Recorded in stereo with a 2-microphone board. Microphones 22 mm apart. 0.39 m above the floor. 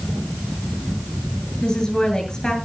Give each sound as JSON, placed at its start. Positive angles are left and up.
{"t": 1.6, "sound": "a woman speaking", "side_deg": 35, "distance_m": 7.5}